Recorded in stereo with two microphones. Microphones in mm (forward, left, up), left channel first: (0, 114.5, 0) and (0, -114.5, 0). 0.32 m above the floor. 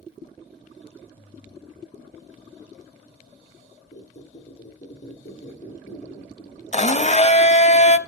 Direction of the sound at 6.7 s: 30° left (ahead or behind).